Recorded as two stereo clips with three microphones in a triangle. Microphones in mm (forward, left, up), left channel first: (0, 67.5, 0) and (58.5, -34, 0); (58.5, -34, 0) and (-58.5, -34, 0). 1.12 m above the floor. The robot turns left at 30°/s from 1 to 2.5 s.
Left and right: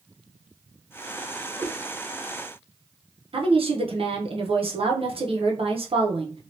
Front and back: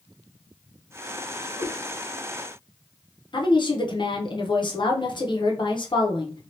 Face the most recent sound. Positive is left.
turn(degrees=-40)